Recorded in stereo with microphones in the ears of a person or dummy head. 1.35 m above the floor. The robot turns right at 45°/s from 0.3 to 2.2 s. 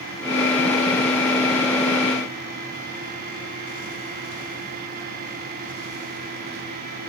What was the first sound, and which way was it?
Only background noise.